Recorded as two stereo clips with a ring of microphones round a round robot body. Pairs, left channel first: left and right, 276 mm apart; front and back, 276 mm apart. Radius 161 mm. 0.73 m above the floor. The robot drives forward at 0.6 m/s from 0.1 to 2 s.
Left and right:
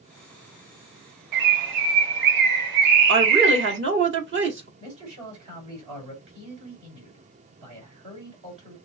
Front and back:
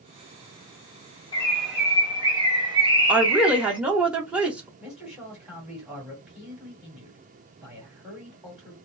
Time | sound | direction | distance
1.3 | a bird | 75° right | 0.9 m
3.1 | a woman speaking | 95° right | 1.3 m
4.8 | a man speaking | 90° right | 3 m